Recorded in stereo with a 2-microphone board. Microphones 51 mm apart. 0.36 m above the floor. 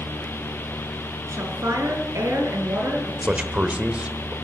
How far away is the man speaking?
About 1.4 m.